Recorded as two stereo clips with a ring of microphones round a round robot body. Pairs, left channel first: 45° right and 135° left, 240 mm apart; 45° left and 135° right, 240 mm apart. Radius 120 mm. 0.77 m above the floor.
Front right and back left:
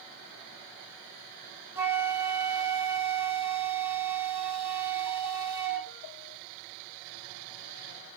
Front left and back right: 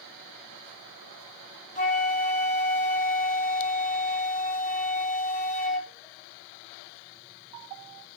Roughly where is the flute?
Ahead left.